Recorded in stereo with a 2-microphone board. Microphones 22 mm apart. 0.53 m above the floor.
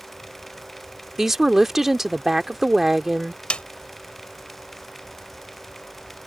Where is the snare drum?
55° left (ahead or behind).